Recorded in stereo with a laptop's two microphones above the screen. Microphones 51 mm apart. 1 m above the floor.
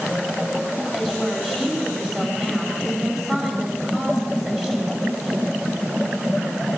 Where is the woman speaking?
15° right (ahead or behind), 9 m.